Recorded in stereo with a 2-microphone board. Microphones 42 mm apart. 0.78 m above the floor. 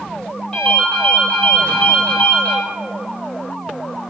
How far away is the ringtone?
About 1.4 m.